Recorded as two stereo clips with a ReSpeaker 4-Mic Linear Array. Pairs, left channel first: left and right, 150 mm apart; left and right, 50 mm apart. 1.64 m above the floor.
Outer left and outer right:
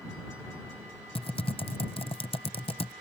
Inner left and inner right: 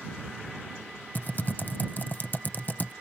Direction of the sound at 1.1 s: 40° left (ahead or behind).